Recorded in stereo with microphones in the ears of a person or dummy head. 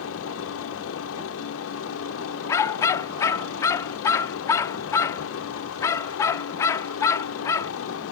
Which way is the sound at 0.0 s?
75° left (ahead or behind).